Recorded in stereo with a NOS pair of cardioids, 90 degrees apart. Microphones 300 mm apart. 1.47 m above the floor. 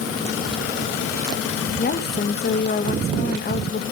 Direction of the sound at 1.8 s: 35° left.